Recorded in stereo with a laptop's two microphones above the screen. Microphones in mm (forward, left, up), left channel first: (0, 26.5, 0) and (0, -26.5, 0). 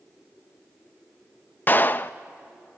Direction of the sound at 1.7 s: 35° left (ahead or behind).